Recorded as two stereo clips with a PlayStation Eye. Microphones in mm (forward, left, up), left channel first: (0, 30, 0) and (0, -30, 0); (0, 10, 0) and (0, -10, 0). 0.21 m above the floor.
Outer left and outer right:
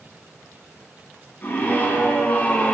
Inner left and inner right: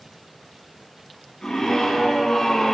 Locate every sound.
1.4 s a scream: 30° left (ahead or behind), 3.5 m; by 2.8 s 20° left (ahead or behind), 2 m